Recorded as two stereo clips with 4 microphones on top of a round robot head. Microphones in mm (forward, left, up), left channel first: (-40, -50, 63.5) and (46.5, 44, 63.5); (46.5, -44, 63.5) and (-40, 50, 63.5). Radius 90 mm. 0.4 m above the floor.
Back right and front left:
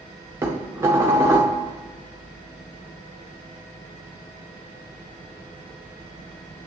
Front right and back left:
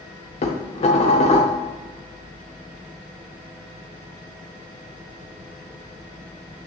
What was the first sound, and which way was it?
Dishes clattering, 20° right.